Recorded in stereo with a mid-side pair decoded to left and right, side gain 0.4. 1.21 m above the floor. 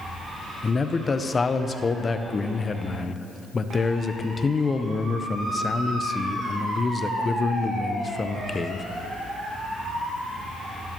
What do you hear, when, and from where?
0.6 s a man speaking: 40° left, 0.5 m